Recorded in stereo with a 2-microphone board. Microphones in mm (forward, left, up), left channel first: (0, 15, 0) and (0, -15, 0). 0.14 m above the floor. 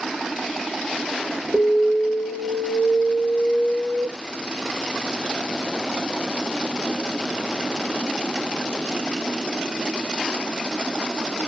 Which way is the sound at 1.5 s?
35° right (ahead or behind).